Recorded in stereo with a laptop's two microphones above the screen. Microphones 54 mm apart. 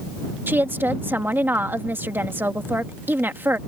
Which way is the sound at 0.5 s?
45° right (ahead or behind).